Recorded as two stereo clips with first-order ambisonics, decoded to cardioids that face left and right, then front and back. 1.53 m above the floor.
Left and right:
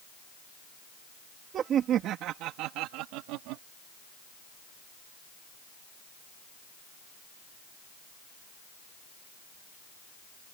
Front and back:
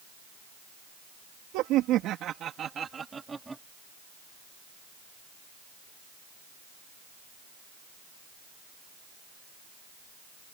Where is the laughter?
150° right; by 3.6 s 95° right.